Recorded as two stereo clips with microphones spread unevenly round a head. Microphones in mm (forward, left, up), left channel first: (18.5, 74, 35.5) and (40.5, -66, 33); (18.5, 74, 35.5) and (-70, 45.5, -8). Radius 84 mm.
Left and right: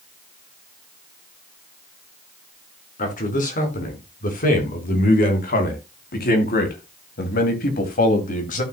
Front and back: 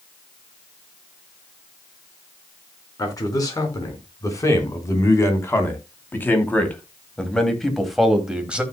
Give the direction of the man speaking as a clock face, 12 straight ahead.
10 o'clock.